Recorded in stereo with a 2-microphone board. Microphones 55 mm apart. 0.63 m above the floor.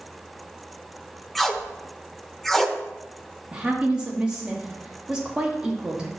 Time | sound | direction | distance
1.4 | tape being pulled | 5° left (ahead or behind) | 0.7 m
3.5 | a woman speaking | 15° right (ahead or behind) | 1.2 m